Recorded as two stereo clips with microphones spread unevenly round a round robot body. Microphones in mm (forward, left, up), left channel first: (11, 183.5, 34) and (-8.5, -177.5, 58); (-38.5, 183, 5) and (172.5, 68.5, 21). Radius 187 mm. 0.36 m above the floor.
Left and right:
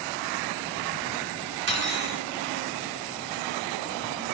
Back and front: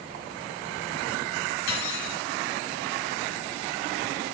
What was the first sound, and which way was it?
Cutlery clinking, 155° right.